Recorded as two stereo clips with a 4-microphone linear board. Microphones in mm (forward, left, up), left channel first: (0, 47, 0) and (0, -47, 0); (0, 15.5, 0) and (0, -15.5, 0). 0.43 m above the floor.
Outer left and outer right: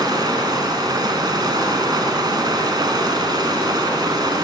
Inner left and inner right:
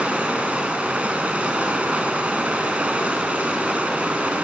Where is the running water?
45° right (ahead or behind), 2.5 m.